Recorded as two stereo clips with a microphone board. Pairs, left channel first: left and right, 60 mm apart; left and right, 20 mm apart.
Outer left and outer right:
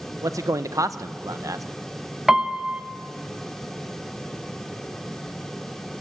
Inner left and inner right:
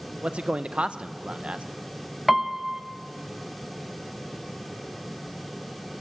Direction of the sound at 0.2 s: 70° right (ahead or behind).